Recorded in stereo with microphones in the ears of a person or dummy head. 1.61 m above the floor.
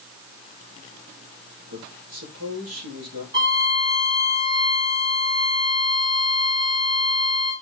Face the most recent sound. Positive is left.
turn(degrees=-25)  # may be behind; listen again after turning